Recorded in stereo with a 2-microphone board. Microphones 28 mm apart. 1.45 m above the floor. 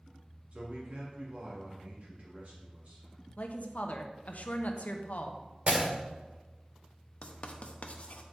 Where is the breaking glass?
55° right (ahead or behind), 2 m.